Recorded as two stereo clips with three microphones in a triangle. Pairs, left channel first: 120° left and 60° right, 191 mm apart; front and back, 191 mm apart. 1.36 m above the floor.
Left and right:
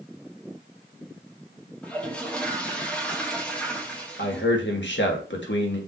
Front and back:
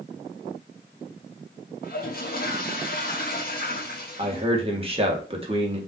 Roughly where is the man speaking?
Behind left.